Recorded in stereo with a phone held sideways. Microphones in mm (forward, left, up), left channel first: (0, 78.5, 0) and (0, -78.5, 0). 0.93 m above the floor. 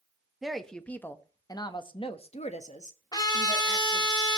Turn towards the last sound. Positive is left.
turn(degrees=25)  # may be behind; listen again after turning